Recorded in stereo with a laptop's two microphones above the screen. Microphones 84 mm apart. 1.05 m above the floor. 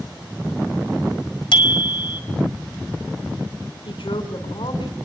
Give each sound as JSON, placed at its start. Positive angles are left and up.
{"t": 1.5, "sound": "a bicycle bell", "side_deg": 80, "distance_m": 2.5}
{"t": 3.9, "sound": "a woman speaking", "side_deg": 85, "distance_m": 4.0}